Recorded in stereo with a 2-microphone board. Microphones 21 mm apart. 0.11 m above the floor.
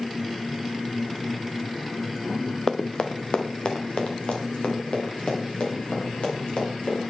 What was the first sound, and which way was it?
Running footsteps, 25° left (ahead or behind).